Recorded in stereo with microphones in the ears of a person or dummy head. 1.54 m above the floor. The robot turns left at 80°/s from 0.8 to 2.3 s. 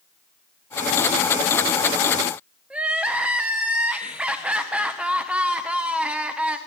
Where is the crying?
10° right (ahead or behind), 0.7 m.